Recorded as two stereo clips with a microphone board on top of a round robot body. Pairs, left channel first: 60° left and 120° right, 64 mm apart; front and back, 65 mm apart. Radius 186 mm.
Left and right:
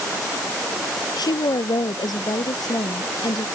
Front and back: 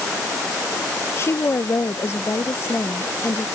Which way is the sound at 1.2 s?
50° left.